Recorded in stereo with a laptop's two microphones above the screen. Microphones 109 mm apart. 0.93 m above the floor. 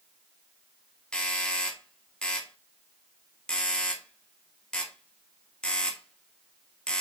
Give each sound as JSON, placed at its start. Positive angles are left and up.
{"t": 1.1, "sound": "a doorbell", "side_deg": 10, "distance_m": 1.9}